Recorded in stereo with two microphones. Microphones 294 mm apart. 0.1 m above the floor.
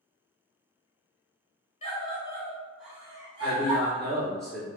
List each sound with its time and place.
1.8 s a scream: 20° left (ahead or behind), 1.5 m; by 4.0 s 30° right (ahead or behind), 1.5 m
3.4 s a man speaking: centre (ahead or behind), 1.6 m